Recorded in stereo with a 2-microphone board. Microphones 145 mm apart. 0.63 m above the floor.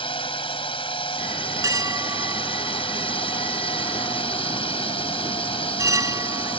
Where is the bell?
20° right (ahead or behind).